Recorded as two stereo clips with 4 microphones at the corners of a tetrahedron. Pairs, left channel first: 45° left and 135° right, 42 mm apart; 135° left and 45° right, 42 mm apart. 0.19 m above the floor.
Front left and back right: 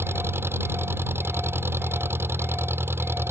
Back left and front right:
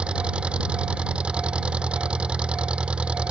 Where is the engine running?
110° right.